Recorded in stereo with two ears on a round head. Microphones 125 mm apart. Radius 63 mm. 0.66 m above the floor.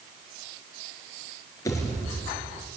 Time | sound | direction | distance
1.6 | a pop | 25° left (ahead or behind) | 3.5 m